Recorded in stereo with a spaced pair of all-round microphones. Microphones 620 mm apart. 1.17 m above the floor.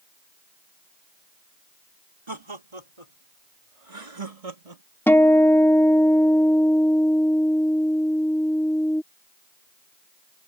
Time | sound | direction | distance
2.3 | laughter | 45° right (ahead or behind) | ?
5.1 | a guitar | 5° left (ahead or behind) | ?